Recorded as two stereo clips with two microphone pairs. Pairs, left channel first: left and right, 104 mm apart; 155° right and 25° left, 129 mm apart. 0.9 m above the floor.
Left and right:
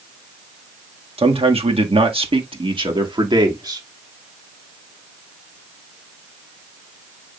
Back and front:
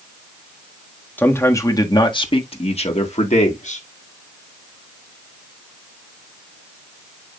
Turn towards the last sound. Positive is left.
turn(degrees=-140)